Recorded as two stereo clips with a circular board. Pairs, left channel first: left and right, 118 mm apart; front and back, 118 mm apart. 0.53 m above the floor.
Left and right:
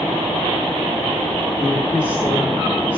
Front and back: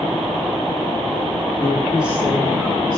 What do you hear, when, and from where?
1.6 s a woman speaking: 30° left, 1.3 m; by 3.0 s 160° left, 2 m